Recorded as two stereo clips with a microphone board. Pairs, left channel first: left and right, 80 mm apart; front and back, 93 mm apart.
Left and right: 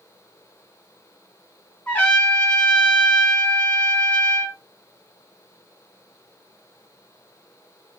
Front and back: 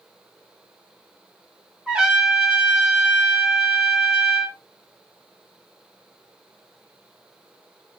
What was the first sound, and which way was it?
A trumpet, 115° left.